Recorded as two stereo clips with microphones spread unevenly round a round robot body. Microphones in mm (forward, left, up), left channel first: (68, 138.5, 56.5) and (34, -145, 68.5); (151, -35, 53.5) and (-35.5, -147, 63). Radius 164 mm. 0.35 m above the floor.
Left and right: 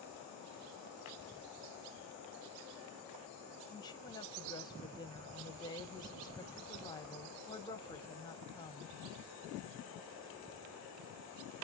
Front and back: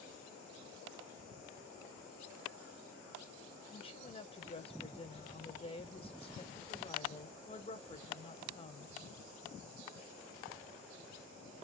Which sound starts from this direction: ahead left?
A woman speaking, at 3.7 s.